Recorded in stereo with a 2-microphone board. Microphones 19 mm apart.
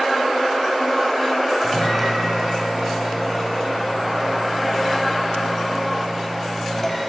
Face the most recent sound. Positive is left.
turn(degrees=10)  # may be behind; listen again after turning